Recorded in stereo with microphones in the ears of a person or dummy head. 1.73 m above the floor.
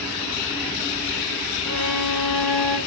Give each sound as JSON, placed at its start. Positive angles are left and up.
{"t": 1.6, "sound": "a violin", "side_deg": 5, "distance_m": 6.0}